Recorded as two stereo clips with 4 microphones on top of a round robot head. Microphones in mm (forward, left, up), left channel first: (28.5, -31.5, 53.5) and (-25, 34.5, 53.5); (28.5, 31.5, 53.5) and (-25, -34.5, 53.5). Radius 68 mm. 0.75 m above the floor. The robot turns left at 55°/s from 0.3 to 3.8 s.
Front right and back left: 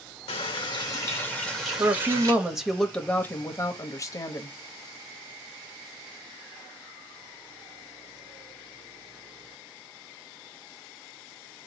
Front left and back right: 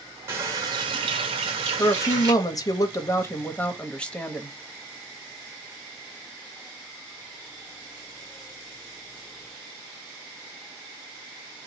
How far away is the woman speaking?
About 1.0 m.